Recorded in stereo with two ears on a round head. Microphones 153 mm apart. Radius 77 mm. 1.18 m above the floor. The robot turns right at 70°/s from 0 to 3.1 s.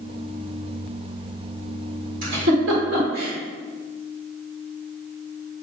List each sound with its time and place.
2.2 s a giggle: 55° right (ahead or behind), 2.5 m; by 3.3 s 60° right (ahead or behind), 2.5 m